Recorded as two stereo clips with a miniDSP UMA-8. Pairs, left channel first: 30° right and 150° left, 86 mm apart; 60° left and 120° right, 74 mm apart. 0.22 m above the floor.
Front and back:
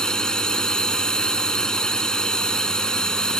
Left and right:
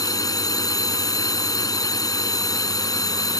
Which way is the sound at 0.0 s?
50° left.